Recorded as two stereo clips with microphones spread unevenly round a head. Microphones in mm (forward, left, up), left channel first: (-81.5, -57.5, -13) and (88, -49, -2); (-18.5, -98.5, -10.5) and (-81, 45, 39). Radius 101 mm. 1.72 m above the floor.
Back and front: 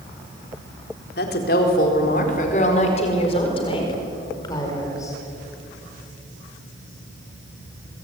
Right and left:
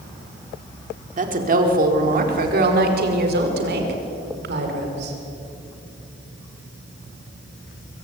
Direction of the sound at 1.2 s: 140° left.